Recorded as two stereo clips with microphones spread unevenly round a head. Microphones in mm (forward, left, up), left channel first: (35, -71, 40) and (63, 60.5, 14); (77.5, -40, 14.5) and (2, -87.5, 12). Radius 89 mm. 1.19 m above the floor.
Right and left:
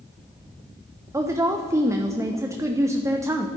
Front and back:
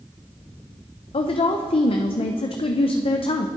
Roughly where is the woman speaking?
Ahead.